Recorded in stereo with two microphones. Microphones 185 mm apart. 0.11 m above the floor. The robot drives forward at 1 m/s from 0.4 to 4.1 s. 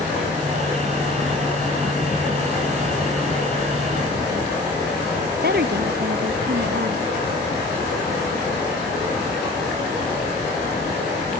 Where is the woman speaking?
60° right (ahead or behind).